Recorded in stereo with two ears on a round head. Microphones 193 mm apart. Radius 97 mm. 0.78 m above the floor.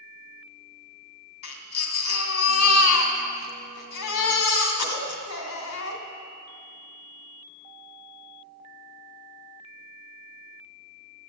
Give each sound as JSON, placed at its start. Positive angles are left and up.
{"t": 1.4, "sound": "a baby crying", "side_deg": 70, "distance_m": 2.0}